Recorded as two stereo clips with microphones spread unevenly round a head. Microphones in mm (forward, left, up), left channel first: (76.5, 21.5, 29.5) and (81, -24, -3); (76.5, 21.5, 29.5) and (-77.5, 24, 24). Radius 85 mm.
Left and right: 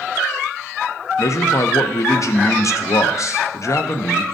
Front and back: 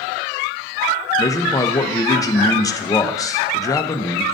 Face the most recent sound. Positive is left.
turn(degrees=70)